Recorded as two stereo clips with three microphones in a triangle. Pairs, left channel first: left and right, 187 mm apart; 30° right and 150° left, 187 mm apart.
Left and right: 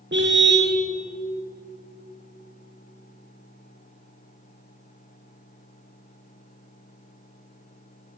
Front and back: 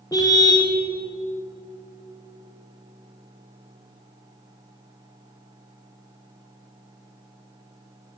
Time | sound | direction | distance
0.1 | a car horn | 100° right | 4.5 m